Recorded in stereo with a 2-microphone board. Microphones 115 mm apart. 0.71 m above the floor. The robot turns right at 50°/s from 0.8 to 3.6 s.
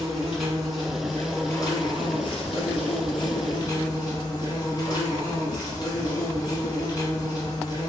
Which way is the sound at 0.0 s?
Straight ahead.